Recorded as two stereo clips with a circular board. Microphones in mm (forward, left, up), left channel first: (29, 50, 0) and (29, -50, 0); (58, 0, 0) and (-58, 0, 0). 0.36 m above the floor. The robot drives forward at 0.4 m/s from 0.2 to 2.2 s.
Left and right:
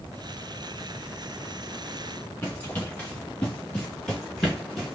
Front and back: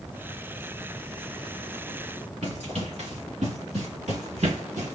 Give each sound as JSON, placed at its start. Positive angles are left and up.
{"t": 2.4, "sound": "running footsteps", "azimuth_deg": 160, "distance_m": 3.0}